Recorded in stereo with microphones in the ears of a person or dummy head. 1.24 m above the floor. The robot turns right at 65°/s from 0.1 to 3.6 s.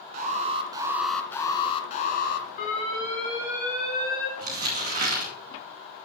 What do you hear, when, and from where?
0.1 s an alarm: 55° right, 1.5 m; by 2.5 s 100° left, 1.5 m
2.6 s an alarm: 140° left, 4 m; by 4.3 s 150° right, 4 m
4.4 s crumpling: 45° right (ahead or behind), 2.5 m